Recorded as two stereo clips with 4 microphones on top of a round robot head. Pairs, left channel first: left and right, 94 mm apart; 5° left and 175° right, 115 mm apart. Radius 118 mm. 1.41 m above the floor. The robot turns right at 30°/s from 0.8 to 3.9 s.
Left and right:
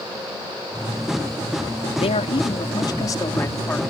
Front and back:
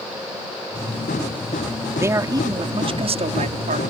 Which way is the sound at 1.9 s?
115° left.